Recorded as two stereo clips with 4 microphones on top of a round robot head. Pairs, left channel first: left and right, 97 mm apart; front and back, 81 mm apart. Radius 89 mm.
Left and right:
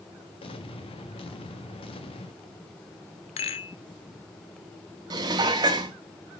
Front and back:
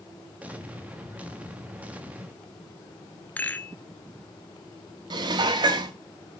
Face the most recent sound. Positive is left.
turn(degrees=-145)